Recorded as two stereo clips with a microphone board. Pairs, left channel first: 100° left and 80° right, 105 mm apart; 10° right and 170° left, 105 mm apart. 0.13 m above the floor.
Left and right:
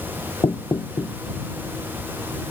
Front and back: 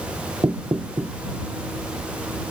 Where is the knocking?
120° left.